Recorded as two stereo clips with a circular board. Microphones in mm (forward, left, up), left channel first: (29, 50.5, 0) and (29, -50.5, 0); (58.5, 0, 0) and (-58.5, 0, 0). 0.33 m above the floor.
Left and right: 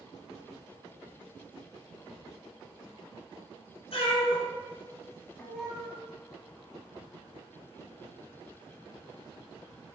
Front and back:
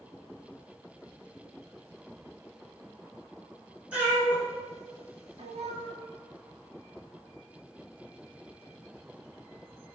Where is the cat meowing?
100° left, 1.5 m; by 5.9 s 170° right, 0.9 m.